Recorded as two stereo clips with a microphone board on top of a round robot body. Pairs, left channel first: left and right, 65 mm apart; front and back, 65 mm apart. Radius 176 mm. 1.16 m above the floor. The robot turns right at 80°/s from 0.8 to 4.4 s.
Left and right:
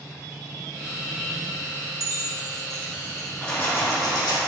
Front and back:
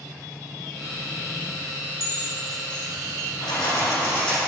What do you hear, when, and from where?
2.0 s keys jangling: 55° right, 1.1 m; by 3.3 s 50° left, 1.1 m
3.4 s keys jangling: 10° left, 1.4 m; by 4.4 s 90° left, 1.4 m